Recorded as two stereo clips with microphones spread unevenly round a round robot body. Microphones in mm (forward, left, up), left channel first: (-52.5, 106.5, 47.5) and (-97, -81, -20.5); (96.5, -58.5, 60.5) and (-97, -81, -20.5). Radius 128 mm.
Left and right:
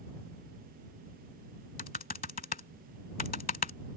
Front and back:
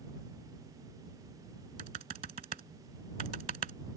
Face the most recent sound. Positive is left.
turn(degrees=120)